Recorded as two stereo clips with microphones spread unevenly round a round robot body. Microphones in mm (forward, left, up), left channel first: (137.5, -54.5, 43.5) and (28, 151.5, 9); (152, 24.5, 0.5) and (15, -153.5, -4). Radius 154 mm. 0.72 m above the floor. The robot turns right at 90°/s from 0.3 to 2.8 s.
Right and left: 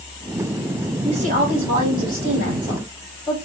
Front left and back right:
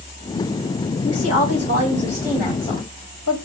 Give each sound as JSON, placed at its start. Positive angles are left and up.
{"t": 1.0, "sound": "a woman speaking", "azimuth_deg": 45, "distance_m": 2.5}